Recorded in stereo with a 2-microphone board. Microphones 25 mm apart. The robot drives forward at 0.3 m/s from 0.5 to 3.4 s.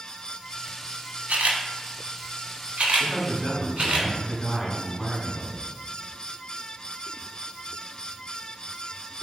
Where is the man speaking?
30° left (ahead or behind), 1.5 m.